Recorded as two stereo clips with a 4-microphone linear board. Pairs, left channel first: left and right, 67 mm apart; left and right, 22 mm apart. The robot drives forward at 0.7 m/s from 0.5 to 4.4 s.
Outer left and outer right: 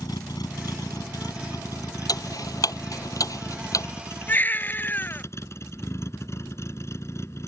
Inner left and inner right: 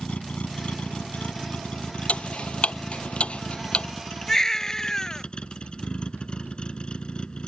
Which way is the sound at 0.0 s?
80° left.